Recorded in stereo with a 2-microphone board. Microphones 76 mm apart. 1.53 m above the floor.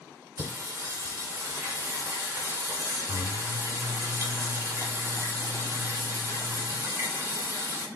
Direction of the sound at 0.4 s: 30° right (ahead or behind).